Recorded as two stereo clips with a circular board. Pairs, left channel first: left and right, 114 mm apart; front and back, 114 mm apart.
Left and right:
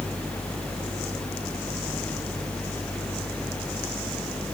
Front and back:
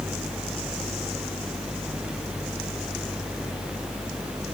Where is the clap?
No clap in this recording.